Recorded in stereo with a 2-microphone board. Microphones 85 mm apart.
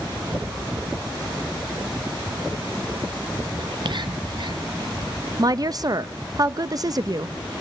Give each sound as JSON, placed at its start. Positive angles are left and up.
{"t": 3.6, "sound": "whispering", "side_deg": -55, "distance_m": 0.7}
{"t": 5.4, "sound": "a woman speaking", "side_deg": -45, "distance_m": 0.6}